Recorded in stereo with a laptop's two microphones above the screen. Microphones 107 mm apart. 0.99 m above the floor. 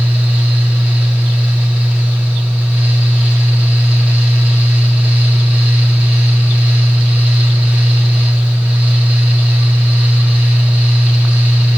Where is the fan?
10° right (ahead or behind), 1.7 m.